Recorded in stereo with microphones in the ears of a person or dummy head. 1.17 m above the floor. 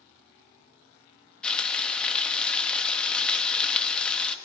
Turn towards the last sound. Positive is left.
turn(degrees=10)  # may be behind; listen again after turning